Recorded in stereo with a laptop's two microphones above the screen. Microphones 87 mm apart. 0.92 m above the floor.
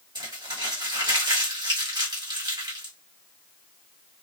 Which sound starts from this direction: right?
Crumpling, at 0.1 s.